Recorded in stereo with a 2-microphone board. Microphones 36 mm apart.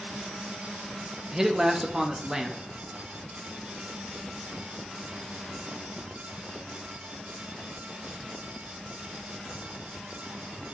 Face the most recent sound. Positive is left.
turn(degrees=-15)  # may be behind; listen again after turning